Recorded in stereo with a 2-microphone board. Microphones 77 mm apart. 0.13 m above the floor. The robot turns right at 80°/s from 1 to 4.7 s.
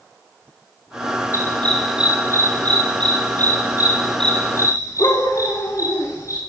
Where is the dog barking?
40° left (ahead or behind), 8 m; by 6.4 s 45° left (ahead or behind), 8 m.